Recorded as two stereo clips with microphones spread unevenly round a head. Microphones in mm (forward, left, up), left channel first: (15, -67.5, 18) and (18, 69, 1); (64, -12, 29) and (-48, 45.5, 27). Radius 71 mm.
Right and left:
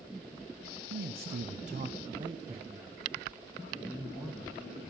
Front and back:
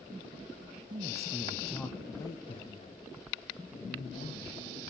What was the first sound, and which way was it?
A man speaking, 105° left.